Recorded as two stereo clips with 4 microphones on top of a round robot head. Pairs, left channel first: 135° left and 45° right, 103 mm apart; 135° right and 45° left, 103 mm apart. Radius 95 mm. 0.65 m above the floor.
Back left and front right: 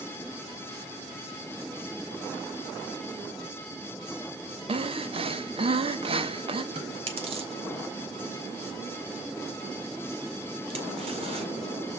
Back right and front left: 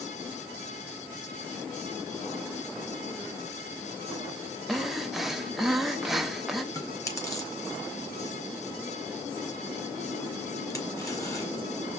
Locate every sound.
4.7 s breathing: 45° right, 1.4 m
6.7 s chewing: 75° right, 4.5 m